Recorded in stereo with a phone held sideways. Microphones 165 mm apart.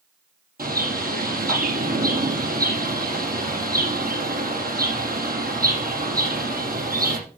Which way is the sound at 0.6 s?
65° right (ahead or behind).